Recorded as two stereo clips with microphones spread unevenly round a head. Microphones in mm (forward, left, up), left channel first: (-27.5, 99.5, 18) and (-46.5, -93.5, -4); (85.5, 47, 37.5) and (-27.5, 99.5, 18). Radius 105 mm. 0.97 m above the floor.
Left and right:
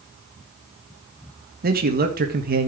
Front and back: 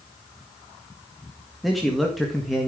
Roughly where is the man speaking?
Behind right.